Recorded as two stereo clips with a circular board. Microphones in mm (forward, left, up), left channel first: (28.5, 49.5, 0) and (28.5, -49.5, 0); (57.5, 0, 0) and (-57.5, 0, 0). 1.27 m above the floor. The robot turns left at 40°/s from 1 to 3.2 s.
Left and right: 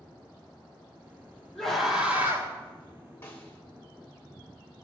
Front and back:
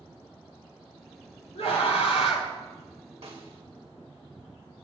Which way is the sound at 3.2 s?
155° left.